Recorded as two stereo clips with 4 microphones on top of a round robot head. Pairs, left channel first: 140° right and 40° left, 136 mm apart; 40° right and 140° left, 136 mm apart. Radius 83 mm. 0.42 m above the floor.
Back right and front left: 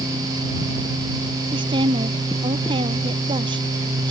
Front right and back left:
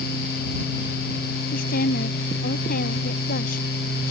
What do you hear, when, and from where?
1.5 s a woman speaking: 20° right